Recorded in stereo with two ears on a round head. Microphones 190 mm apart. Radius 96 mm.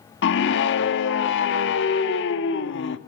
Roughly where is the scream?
Left.